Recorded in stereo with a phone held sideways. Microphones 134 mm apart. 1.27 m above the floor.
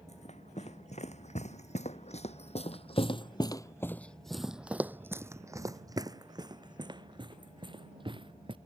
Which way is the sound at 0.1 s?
55° left (ahead or behind).